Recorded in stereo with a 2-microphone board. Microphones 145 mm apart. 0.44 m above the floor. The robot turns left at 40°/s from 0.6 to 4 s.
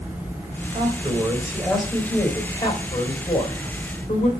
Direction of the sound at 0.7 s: 140° right.